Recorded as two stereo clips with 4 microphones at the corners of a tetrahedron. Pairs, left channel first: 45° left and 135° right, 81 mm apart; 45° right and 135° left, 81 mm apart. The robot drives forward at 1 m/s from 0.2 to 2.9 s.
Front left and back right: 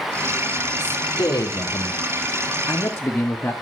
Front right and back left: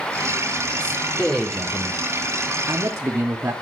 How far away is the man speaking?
About 2.5 m.